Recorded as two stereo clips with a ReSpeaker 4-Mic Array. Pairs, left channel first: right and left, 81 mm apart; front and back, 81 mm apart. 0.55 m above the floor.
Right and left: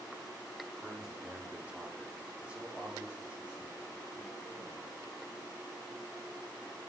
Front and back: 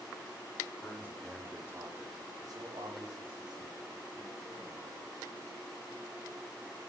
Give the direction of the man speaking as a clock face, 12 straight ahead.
12 o'clock.